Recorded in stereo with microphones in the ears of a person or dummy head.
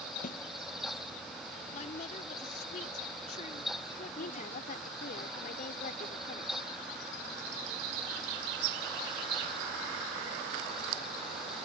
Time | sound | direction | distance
0.2 | a snare drum | 40° left (ahead or behind) | ?
1.7 | a woman speaking | 50° left (ahead or behind) | ?
4.2 | a woman speaking | 55° left (ahead or behind) | ?